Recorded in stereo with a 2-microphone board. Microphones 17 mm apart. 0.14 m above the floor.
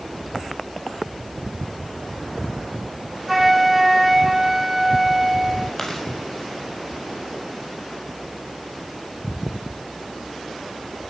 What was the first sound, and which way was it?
A flute, 10° right (ahead or behind).